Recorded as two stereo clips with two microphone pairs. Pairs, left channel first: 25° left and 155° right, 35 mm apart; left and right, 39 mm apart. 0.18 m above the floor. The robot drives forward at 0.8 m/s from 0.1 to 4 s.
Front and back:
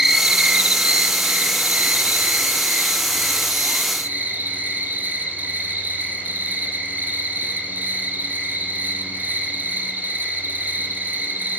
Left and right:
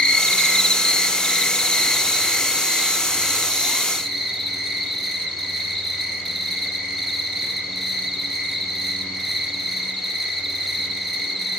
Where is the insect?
130° left, 0.9 m; by 11.6 s 175° left, 3.5 m.